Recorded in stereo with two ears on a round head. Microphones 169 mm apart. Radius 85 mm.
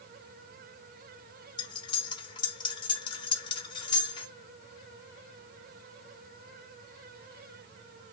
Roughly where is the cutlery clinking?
Left.